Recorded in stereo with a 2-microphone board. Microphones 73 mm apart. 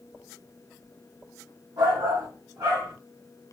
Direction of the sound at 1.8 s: 75° right (ahead or behind).